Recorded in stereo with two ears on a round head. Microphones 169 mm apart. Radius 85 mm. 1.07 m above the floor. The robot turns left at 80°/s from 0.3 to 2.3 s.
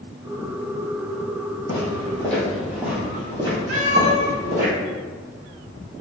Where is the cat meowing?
55° right (ahead or behind), 1.9 m.